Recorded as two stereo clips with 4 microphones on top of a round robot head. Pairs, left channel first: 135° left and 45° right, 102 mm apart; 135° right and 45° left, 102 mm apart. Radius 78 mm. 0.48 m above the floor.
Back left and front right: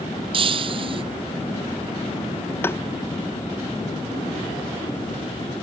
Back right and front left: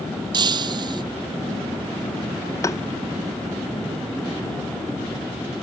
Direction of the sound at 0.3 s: 5° right.